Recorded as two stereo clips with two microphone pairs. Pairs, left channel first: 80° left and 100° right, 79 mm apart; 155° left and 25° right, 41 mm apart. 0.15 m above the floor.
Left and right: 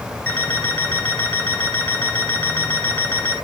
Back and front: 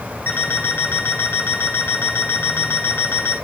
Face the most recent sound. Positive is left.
turn(degrees=145)